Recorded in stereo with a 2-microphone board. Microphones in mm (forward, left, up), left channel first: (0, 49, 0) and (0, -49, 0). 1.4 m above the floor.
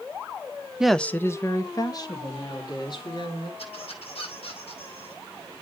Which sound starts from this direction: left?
A squeak, at 3.6 s.